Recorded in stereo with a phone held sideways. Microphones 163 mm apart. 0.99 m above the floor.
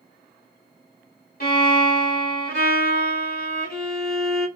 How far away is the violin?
About 1.5 m.